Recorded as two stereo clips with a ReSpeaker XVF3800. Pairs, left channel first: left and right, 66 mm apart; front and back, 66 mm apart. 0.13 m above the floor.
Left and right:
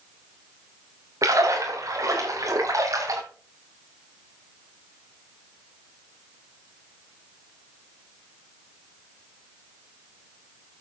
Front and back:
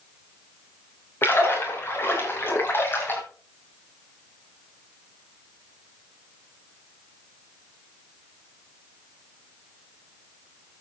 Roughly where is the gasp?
No gasp in this recording.